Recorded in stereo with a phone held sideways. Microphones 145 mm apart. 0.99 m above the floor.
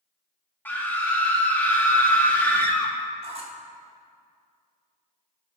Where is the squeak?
45° right (ahead or behind), 1.6 m.